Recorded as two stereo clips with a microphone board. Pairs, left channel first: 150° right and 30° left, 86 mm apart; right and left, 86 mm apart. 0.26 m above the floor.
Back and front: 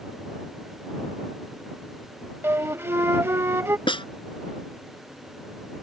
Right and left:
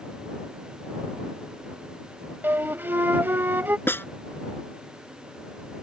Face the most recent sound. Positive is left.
turn(degrees=-155)